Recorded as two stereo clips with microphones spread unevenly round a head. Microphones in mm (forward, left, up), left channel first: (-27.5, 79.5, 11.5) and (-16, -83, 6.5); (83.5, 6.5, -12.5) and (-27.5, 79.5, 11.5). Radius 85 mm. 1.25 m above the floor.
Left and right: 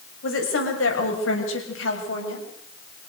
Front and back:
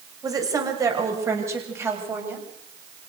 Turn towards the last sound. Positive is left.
turn(degrees=75)